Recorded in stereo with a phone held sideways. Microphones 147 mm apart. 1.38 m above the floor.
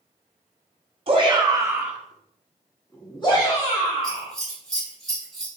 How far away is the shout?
About 0.9 m.